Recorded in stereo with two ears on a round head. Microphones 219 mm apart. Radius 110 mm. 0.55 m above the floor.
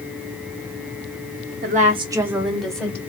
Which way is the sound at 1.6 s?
35° right (ahead or behind).